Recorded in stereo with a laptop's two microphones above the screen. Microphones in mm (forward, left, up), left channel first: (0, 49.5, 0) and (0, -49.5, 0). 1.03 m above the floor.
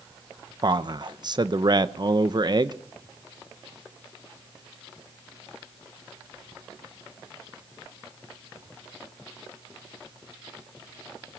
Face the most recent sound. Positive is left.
turn(degrees=-45)  # may be behind; listen again after turning